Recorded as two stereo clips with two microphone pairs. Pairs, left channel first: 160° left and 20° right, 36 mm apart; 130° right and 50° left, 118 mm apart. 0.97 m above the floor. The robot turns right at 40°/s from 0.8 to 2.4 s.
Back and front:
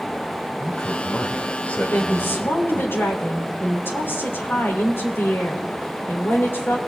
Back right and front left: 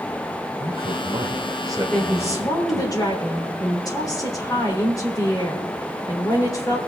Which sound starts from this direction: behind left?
A woman speaking, at 1.9 s.